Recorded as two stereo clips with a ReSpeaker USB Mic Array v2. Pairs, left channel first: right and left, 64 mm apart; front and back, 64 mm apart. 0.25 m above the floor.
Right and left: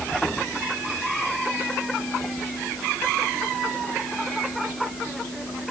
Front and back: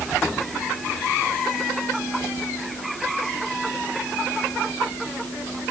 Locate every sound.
Only background noise.